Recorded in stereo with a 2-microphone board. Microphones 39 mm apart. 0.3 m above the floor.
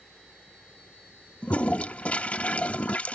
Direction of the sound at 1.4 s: 35° left (ahead or behind).